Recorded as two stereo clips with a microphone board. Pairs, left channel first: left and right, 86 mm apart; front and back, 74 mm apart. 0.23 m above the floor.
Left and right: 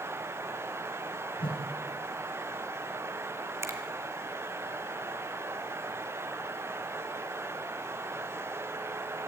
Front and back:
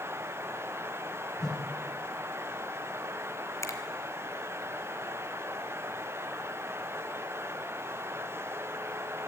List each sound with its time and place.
1.4 s a whoosh: 85° left, 4.5 m
3.6 s a finger snap: 40° right, 2.5 m